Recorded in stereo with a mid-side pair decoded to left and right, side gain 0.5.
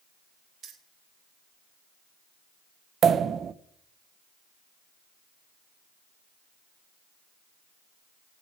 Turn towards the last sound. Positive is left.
turn(degrees=-50)